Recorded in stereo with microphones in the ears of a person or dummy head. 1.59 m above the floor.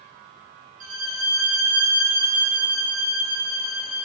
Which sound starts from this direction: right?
A violin, at 0.8 s.